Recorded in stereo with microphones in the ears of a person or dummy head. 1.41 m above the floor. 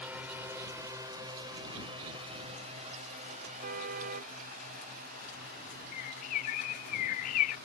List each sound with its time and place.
0.0 s a drone: 10° right (ahead or behind); by 7.7 s 55° right (ahead or behind)
3.6 s a car horn: 50° right (ahead or behind)
5.9 s a bird: 45° left (ahead or behind)